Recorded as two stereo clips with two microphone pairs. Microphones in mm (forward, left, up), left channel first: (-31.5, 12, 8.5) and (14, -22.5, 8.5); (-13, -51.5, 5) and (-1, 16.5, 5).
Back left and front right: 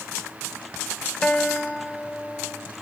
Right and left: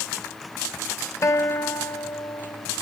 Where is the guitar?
140° right, 1.5 m.